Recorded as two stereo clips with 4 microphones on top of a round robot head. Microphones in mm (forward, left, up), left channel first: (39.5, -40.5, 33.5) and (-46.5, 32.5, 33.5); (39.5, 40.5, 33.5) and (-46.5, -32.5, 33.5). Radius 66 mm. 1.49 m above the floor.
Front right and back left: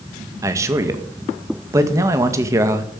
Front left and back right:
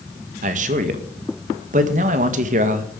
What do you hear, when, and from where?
0.4 s a man speaking: 155° right, 1.9 m